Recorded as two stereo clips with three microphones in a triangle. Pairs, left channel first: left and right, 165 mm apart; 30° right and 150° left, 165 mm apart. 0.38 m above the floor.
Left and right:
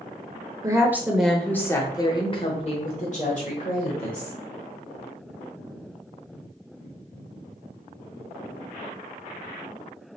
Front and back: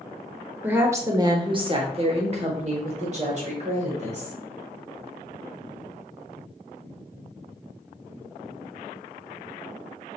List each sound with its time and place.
0.6 s a woman speaking: 140° right, 0.9 m; by 4.3 s 110° left, 1.9 m